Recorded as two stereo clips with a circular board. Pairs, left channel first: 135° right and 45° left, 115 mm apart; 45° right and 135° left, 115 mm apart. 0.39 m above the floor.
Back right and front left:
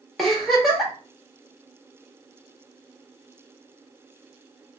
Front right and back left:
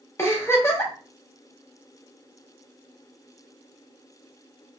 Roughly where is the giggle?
Ahead right.